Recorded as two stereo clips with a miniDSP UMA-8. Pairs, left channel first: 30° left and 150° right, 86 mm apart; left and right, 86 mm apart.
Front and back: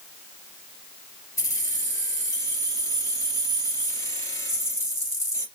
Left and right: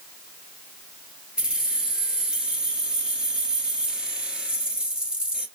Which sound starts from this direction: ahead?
Keys jangling, at 1.4 s.